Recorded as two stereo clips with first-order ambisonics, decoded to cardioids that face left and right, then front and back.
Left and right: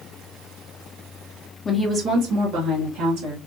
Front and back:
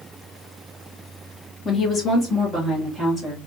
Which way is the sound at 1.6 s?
50° left.